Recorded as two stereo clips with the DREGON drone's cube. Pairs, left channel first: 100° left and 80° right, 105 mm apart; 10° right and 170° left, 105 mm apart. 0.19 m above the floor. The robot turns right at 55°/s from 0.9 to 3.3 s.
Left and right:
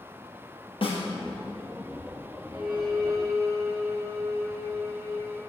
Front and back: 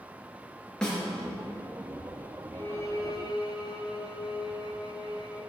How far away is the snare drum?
About 3 m.